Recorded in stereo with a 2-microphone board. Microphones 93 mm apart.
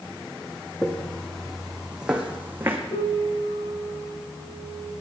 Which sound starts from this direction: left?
A piano, at 2.9 s.